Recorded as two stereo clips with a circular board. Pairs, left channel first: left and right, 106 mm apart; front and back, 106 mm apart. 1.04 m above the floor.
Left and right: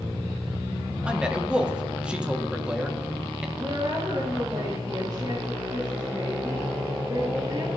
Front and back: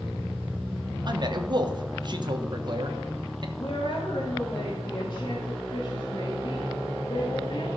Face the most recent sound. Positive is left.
turn(degrees=-40)